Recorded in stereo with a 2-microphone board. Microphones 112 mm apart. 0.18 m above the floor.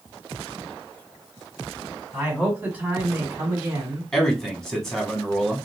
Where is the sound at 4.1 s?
5° left (ahead or behind), 1.1 m.